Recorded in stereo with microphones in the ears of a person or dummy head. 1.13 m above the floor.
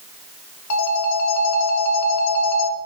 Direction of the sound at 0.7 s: 75° left (ahead or behind).